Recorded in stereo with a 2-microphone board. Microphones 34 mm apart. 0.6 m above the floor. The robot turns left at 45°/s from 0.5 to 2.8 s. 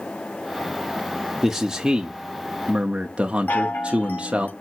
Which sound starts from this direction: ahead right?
A man speaking, at 1.4 s.